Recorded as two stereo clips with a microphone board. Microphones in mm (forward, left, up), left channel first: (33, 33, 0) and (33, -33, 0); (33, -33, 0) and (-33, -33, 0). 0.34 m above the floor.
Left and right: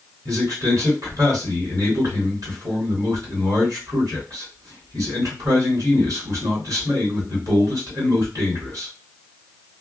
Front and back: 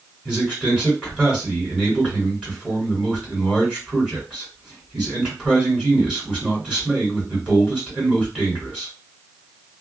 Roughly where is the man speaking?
Right.